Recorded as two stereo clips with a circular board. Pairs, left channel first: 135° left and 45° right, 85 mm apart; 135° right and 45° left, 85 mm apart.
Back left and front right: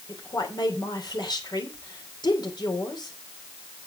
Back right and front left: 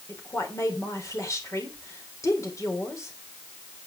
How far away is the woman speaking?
About 3 m.